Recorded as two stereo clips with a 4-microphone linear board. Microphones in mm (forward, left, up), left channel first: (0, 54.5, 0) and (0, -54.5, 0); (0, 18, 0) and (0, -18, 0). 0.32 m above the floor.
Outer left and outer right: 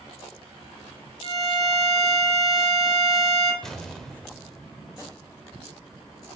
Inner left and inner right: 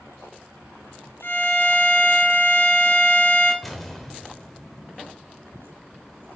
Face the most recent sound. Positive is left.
turn(degrees=5)  # may be behind; listen again after turning